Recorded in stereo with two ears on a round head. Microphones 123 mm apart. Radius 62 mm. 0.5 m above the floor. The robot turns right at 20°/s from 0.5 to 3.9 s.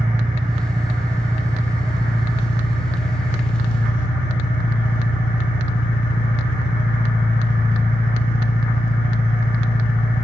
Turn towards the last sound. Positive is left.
turn(degrees=60)